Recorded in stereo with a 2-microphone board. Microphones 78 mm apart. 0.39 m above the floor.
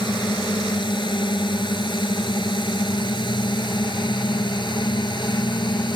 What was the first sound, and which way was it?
A drone, 75° left (ahead or behind).